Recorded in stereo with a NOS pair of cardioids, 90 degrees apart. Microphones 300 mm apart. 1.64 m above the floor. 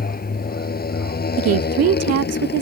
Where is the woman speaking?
55° right.